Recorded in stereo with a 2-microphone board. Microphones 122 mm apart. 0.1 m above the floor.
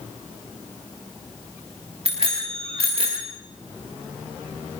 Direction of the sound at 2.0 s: 50° right (ahead or behind).